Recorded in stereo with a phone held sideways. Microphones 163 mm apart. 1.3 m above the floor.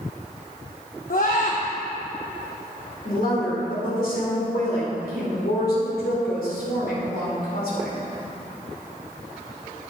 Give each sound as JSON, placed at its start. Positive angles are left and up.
{"t": 1.1, "sound": "a scream", "side_deg": 60, "distance_m": 0.9}
{"t": 3.0, "sound": "a woman speaking", "side_deg": 80, "distance_m": 3.5}